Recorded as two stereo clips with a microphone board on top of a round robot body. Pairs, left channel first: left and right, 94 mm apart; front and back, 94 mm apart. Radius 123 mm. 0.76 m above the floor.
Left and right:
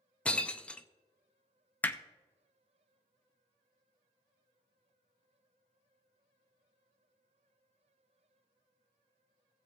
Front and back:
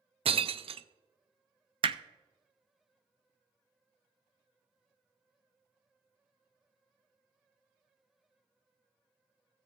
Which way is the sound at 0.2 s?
165° left.